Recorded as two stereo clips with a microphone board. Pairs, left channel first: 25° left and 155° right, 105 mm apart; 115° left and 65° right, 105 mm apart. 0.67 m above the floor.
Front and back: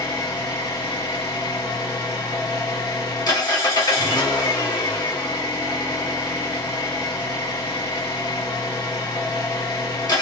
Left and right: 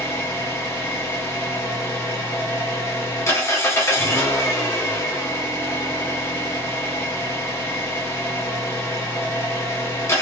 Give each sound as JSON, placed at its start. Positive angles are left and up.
{"t": 0.0, "sound": "an engine running", "azimuth_deg": 60, "distance_m": 1.1}